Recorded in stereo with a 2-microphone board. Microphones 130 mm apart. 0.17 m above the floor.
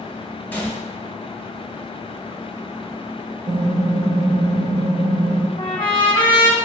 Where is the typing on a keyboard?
70° right (ahead or behind), 1.0 m.